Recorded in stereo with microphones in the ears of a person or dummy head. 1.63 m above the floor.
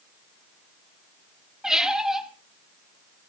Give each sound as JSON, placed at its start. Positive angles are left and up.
{"t": 1.6, "sound": "a squeak", "side_deg": -5, "distance_m": 1.7}